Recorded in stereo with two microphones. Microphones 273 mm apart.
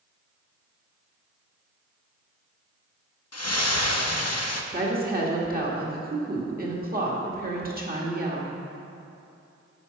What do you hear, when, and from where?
3.3 s a splash: 65° left (ahead or behind), 0.7 m
4.7 s a woman speaking: 35° right (ahead or behind), 1.5 m